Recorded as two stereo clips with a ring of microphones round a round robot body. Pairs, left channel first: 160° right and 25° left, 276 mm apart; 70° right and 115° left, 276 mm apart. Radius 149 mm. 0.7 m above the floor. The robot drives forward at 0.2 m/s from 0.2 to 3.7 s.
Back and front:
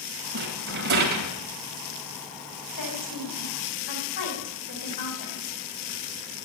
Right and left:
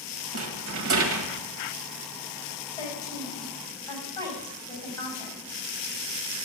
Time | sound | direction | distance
0.3 | a rattle | 75° left | 2 m
2.8 | a woman speaking | 145° right | 5.5 m